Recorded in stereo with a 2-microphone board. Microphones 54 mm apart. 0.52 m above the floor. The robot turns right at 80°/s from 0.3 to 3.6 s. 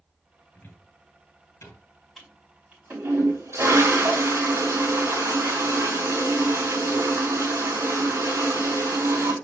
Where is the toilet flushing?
Straight behind, 4 m; by 9.3 s 65° right, 4 m.